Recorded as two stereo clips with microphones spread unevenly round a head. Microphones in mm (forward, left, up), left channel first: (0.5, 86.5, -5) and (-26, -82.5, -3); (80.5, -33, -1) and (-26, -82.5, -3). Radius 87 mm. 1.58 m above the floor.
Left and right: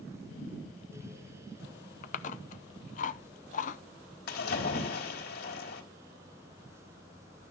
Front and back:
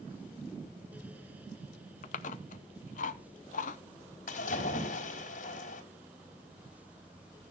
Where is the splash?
45° left, 4 m.